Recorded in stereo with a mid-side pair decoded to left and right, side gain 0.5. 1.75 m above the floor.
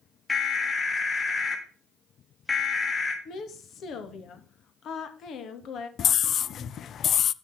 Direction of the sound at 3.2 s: 60° left.